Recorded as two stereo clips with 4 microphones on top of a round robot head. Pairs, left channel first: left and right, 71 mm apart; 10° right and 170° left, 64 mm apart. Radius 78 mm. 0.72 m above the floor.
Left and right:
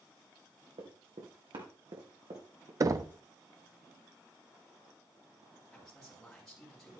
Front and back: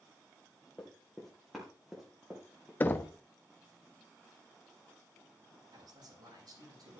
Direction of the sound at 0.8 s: 90° right.